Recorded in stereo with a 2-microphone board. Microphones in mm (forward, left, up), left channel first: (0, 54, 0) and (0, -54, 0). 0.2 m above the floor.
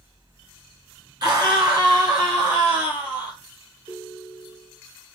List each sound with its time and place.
1.2 s a scream: 40° right (ahead or behind), 2.0 m; by 3.4 s 45° right (ahead or behind), 3 m
3.9 s a ringtone: 60° right (ahead or behind), 2 m